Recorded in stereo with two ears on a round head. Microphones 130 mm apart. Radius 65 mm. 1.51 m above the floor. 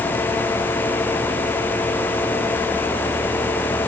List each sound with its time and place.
Only background noise.